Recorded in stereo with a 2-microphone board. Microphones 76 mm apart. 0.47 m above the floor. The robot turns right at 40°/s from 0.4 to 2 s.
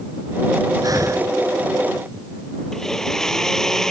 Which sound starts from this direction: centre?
A blender, at 2.7 s.